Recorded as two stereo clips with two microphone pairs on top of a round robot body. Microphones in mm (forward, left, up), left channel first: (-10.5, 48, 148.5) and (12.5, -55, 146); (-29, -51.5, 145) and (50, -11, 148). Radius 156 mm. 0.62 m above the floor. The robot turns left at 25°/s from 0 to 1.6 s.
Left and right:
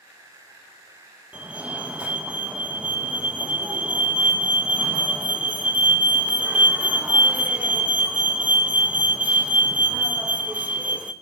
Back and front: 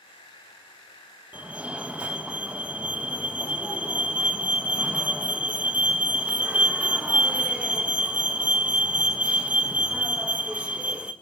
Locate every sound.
1.3 s a fire alarm: 20° right, 1.8 m; by 11.1 s 25° right, 1.8 m